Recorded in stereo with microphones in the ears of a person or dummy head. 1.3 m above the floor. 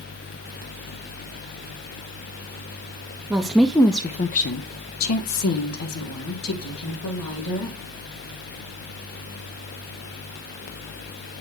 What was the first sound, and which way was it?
A woman speaking, 10° right (ahead or behind).